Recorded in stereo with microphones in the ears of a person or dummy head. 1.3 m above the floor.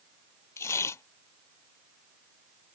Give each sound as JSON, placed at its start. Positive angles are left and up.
{"t": 0.6, "sound": "tearing paper", "side_deg": 15}